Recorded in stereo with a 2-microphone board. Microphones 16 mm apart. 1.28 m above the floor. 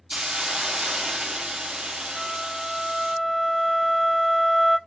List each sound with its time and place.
0.1 s a hiss: 65° right (ahead or behind), 0.8 m
2.2 s a flute: 10° right (ahead or behind), 0.6 m